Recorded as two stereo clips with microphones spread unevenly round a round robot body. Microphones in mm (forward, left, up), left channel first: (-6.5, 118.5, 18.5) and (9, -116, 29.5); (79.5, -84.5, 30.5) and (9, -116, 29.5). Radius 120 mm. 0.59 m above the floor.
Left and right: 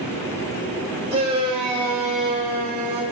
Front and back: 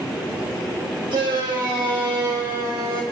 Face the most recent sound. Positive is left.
turn(degrees=-150)